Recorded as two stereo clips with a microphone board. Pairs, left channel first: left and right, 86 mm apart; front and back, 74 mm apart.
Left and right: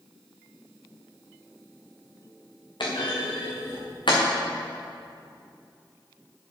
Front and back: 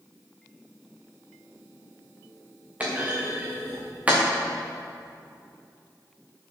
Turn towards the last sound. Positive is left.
turn(degrees=110)